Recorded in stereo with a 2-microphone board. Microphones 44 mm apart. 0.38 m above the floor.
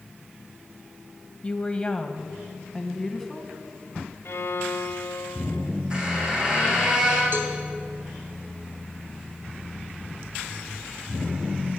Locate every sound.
1.4 s a woman speaking: 25° left (ahead or behind), 2 m; by 3.5 s 5° left (ahead or behind), 3.5 m
4.2 s a violin: 70° left (ahead or behind), 0.6 m
5.9 s a squeak: 20° right (ahead or behind), 7.5 m
7.3 s a cowbell: 55° right (ahead or behind), 3.5 m